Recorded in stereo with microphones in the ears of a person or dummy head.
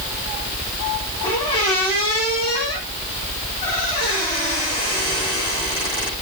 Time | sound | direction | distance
1.2 | a squeak | 25° left (ahead or behind) | 8.5 m